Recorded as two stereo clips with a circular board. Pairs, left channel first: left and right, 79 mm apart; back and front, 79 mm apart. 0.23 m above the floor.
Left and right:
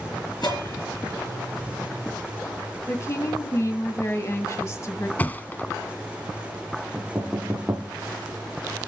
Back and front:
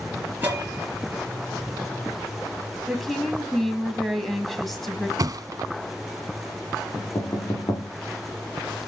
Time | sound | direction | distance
0.4 | a bell | 65° left | 4.5 m
2.9 | a woman speaking | 90° left | 1.8 m
5.2 | a thud | 25° left | 1.0 m
7.0 | knocking | 160° right | 6.5 m